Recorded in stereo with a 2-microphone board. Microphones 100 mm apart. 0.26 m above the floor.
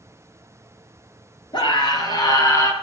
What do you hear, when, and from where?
1.5 s a scream: 50° left (ahead or behind), 4.5 m; by 2.7 s 30° left (ahead or behind), 4 m